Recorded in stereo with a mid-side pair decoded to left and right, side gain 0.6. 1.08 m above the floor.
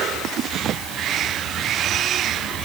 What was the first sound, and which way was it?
Only background noise.